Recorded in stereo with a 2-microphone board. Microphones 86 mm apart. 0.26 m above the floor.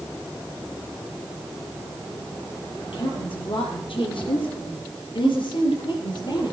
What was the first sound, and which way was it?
A woman speaking, 70° left (ahead or behind).